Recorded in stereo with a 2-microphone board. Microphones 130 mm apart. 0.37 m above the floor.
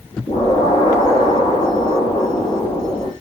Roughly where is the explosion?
Left.